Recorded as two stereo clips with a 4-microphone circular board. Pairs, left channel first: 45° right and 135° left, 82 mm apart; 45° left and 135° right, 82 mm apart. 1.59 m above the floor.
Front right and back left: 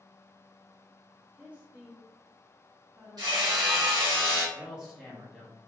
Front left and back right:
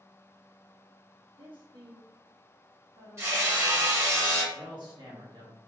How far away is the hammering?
About 1.4 m.